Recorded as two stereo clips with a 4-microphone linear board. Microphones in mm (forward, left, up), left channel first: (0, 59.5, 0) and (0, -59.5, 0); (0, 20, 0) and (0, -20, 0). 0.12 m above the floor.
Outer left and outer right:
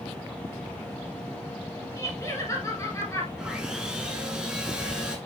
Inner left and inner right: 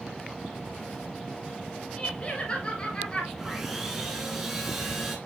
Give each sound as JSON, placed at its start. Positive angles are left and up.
{"t": 2.0, "sound": "laughter", "side_deg": 25, "distance_m": 2.0}
{"t": 3.4, "sound": "sawing", "side_deg": -5, "distance_m": 1.2}